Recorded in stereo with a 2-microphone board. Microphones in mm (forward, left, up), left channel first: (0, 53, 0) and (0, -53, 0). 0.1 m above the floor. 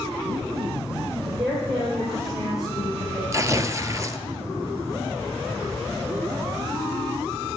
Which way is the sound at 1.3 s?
55° right (ahead or behind).